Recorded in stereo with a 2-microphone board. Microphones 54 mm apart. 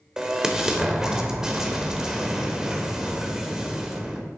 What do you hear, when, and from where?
0.2 s an explosion: 10° right (ahead or behind), 1.0 m